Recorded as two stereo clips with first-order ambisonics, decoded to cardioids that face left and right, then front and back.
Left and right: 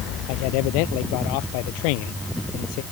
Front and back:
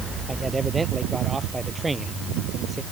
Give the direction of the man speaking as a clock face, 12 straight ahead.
9 o'clock.